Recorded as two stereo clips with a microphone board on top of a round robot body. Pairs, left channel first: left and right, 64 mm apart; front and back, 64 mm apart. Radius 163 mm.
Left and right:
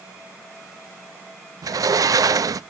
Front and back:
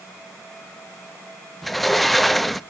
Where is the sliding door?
90° right, 0.6 m.